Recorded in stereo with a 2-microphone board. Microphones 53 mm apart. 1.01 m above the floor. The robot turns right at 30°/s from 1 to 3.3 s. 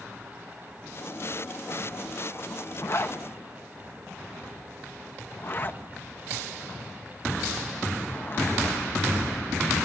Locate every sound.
2.8 s a zipper: 50° left (ahead or behind), 0.9 m; by 8.8 s 40° left (ahead or behind), 0.9 m